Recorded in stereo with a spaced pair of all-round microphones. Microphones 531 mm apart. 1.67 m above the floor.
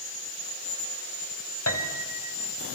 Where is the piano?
30° left (ahead or behind), 2 m.